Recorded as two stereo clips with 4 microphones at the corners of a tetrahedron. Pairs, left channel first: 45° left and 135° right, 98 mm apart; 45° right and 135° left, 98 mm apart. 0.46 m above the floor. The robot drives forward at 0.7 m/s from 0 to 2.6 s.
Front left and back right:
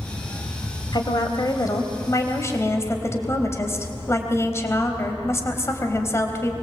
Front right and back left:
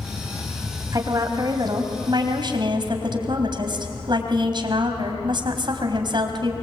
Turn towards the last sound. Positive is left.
turn(degrees=105)